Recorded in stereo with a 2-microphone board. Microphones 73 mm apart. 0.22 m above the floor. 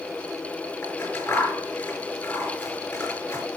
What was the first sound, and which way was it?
Scissors, 40° left (ahead or behind).